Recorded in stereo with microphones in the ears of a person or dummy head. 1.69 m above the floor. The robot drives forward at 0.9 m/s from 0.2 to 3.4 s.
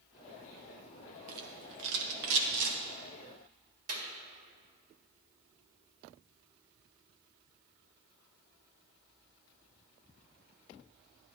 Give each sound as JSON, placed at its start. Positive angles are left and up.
{"t": 1.3, "sound": "a rattle", "side_deg": -55, "distance_m": 1.4}
{"t": 3.9, "sound": "a clap", "side_deg": -50, "distance_m": 1.7}